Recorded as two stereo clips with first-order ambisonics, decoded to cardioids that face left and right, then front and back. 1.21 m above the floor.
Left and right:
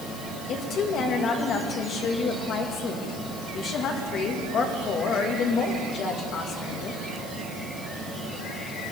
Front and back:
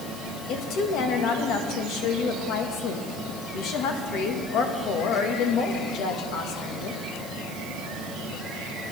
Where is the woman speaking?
40° left, 1.6 m.